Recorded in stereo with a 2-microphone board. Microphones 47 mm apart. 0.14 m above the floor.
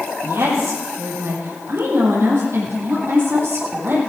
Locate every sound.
0.2 s a woman speaking: 65° right (ahead or behind), 5 m; by 4.0 s 55° right (ahead or behind), 6.5 m